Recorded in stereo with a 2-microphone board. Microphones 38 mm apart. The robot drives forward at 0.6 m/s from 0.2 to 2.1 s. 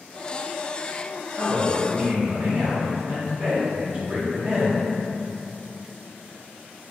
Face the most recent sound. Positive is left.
turn(degrees=-35)  # may be behind; listen again after turning